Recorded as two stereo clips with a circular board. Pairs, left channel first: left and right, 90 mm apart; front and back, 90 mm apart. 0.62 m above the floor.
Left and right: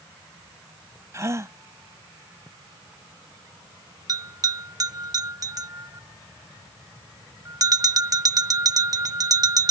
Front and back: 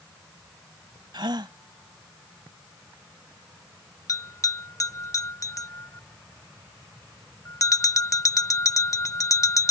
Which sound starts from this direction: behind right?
A gasp, at 1.1 s.